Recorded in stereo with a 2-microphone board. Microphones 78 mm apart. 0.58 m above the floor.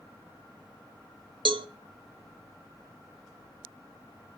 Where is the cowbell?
80° right, 0.7 m.